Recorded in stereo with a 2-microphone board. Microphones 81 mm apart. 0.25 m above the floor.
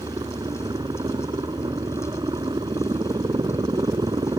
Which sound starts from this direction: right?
A helicopter, at 0.0 s.